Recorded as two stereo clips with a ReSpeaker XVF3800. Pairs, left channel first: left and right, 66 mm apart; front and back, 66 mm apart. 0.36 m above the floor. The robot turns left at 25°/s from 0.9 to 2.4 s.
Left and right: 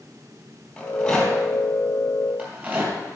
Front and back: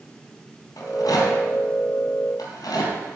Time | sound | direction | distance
0.8 | a rattle | 15° left | 3.5 m